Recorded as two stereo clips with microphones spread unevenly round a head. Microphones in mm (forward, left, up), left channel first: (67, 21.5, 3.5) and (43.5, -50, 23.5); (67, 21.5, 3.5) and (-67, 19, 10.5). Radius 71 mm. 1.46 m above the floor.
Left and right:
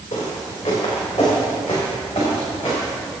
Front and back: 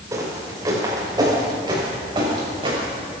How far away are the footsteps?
About 5.5 m.